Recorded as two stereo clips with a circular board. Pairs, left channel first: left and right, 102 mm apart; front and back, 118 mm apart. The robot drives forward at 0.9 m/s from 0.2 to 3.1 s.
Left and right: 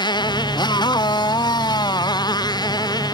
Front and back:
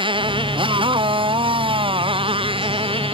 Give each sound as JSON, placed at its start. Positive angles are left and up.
{"t": 0.0, "sound": "a motorcycle", "azimuth_deg": 135}